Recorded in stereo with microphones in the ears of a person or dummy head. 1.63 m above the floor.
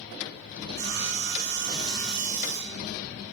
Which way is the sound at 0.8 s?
60° right (ahead or behind).